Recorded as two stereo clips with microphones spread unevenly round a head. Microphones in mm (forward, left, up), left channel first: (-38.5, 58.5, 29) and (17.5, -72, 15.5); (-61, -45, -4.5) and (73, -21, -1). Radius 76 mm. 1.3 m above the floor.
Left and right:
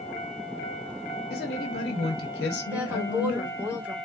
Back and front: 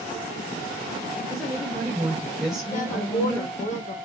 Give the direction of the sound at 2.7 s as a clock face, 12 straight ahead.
5 o'clock.